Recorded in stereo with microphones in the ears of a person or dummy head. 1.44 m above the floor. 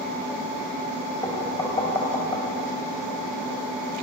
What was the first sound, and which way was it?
Knocking, 20° left (ahead or behind).